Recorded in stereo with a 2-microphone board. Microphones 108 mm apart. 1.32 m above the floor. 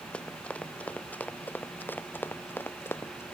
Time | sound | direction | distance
0.1 | running footsteps | 10° left (ahead or behind) | ?